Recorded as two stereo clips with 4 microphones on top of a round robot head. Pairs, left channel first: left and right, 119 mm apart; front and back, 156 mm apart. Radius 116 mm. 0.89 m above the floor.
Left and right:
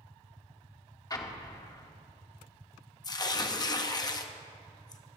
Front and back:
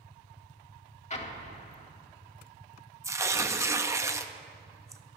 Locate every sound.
1.1 s an explosion: 40° left, 1.6 m
3.0 s tearing paper: 120° left, 0.9 m